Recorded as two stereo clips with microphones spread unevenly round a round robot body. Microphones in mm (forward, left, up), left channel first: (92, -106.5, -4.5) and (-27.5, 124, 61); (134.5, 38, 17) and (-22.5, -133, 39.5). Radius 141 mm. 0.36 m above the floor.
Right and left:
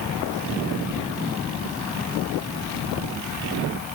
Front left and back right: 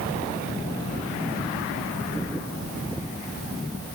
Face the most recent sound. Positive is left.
No sound to turn to.